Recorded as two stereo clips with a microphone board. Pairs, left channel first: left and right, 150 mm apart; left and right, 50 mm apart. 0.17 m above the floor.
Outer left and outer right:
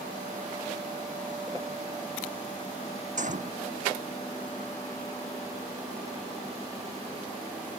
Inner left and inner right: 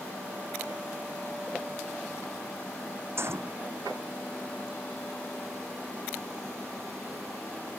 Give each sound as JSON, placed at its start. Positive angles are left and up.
{"t": 3.2, "sound": "a gunshot", "side_deg": -55}